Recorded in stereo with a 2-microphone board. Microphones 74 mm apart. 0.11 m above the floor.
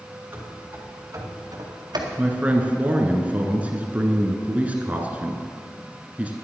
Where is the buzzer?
I don't hear a buzzer.